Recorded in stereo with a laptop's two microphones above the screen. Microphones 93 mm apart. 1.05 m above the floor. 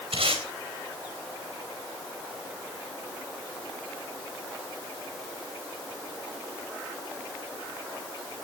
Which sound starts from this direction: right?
Tape being pulled, at 0.1 s.